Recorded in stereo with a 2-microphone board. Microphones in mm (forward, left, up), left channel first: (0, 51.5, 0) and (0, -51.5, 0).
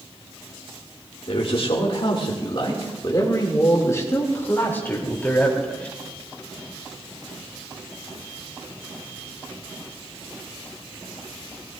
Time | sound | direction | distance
1.3 | a man speaking | 65° left (ahead or behind) | 2.5 m